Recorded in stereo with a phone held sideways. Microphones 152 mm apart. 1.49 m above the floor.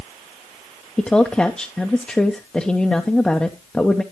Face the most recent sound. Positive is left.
turn(degrees=5)  # may be behind; listen again after turning